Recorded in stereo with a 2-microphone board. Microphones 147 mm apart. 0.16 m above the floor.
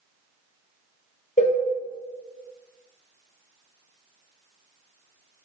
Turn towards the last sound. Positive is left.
turn(degrees=55)  # may be behind; listen again after turning